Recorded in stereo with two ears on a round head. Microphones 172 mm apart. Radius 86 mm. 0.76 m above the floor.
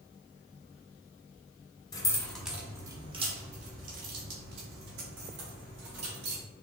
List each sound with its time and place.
1.9 s keys jangling: 20° left (ahead or behind), 0.7 m; by 6.4 s 65° right (ahead or behind), 2.5 m